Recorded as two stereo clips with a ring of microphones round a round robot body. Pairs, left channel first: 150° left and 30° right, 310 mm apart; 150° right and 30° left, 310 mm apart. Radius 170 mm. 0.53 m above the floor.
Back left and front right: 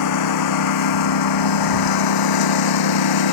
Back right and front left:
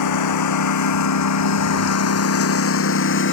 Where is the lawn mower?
Straight behind; by 3.3 s 155° left.